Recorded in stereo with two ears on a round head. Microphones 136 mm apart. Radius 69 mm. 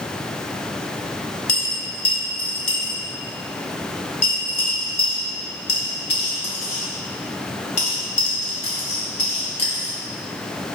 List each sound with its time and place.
1.5 s a dropped coin: 40° left (ahead or behind), 1.0 m